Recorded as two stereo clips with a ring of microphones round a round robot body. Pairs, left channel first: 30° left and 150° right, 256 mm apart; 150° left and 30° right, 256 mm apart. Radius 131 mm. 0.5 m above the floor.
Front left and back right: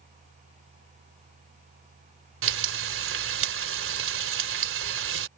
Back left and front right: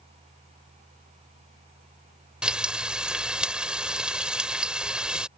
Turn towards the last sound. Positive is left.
turn(degrees=-115)